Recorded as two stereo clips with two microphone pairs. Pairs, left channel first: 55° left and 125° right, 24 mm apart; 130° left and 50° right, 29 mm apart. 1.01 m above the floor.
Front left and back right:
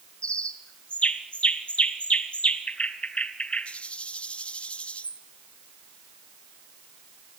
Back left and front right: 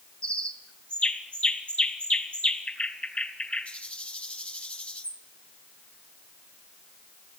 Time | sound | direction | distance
0.2 | a bird | 95° left | 2.5 m